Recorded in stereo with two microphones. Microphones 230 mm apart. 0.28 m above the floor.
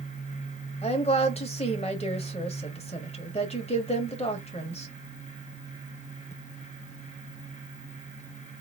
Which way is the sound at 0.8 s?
25° left (ahead or behind).